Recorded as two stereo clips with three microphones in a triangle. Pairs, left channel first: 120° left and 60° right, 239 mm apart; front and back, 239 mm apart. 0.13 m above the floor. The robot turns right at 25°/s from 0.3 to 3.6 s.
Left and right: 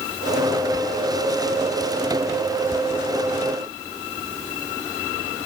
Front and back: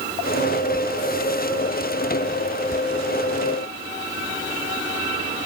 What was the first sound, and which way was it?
Only background noise.